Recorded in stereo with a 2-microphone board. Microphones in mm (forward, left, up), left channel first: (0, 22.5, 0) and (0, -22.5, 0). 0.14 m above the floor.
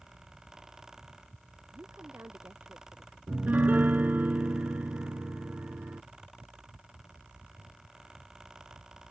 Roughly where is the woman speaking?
Right.